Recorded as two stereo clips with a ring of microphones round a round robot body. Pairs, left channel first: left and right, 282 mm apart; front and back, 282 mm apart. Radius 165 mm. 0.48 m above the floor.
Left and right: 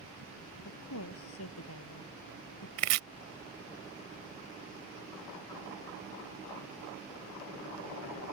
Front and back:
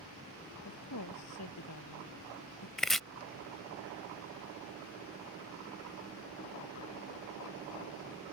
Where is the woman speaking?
45° left.